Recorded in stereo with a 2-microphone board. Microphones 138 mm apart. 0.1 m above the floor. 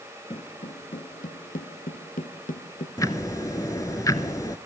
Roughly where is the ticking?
Left.